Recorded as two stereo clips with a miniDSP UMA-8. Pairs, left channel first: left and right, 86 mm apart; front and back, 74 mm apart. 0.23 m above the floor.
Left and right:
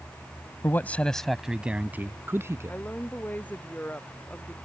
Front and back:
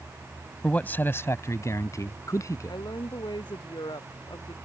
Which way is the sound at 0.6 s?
60° left.